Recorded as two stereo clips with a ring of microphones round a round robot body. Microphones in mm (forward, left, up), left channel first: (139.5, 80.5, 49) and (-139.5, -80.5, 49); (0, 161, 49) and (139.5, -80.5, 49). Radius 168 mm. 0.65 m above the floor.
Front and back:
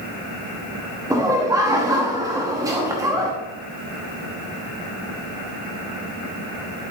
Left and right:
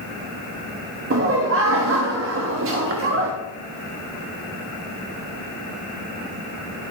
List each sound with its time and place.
1.1 s laughter: 75° right, 1.0 m